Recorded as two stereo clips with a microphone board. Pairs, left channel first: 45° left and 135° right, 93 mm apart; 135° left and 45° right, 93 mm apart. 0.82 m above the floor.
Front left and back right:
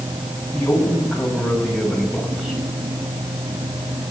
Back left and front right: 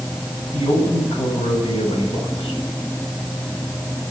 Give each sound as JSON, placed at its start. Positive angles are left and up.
{"t": 0.5, "sound": "a man speaking", "azimuth_deg": 125, "distance_m": 6.5}